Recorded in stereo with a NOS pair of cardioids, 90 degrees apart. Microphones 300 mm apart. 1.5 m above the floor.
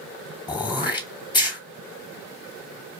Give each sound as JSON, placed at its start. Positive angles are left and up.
{"t": 0.5, "sound": "throat clearing", "azimuth_deg": 15, "distance_m": 0.8}